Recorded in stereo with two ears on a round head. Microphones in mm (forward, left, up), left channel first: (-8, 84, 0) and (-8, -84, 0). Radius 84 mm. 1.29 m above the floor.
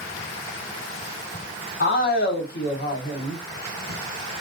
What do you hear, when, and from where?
1.8 s a man speaking: 50° left (ahead or behind), 1.0 m